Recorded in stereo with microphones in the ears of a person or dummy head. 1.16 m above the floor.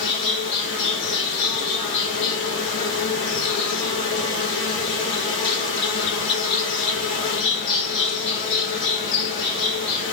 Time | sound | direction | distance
0.0 | an insect | 65° left (ahead or behind) | 1.9 m